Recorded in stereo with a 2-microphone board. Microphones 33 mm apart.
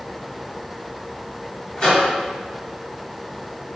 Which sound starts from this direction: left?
A microwave, at 1.8 s.